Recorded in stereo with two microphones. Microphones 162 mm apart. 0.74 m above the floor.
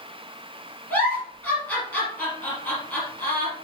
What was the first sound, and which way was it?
A giggle, 10° left (ahead or behind).